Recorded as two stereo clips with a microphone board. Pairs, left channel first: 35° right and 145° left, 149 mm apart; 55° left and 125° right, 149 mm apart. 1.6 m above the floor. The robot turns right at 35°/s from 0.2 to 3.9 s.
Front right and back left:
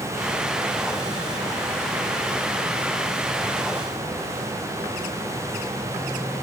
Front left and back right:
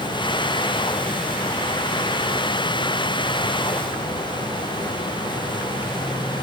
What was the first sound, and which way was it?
Only background noise.